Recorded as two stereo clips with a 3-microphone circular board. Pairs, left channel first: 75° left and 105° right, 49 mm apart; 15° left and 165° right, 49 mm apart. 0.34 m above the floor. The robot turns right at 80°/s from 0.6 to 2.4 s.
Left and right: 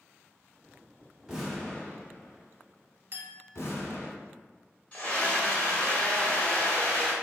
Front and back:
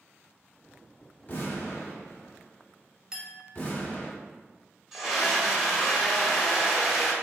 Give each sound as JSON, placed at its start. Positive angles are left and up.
{"t": 1.3, "sound": "an explosion", "azimuth_deg": -30, "distance_m": 1.0}
{"t": 3.1, "sound": "a clink", "azimuth_deg": -95, "distance_m": 0.7}
{"t": 4.9, "sound": "a scream", "azimuth_deg": 115, "distance_m": 1.1}